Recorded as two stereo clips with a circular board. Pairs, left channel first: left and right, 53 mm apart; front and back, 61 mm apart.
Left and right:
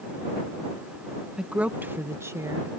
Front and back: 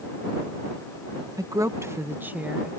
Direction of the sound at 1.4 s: 165° right.